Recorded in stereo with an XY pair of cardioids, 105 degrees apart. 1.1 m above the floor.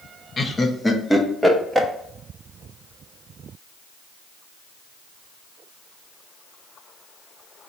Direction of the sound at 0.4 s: 35° left.